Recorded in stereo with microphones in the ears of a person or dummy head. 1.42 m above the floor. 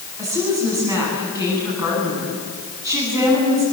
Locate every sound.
0.2 s a woman speaking: 20° right (ahead or behind), 10 m